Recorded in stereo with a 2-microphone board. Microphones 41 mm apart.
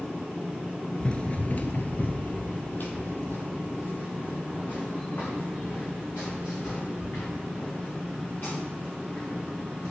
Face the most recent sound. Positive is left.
turn(degrees=50)  # may be behind; listen again after turning